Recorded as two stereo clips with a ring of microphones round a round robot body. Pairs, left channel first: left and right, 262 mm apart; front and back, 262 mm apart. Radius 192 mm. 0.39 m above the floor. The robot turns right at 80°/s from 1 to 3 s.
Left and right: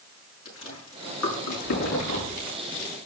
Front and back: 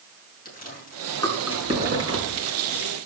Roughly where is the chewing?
Ahead left.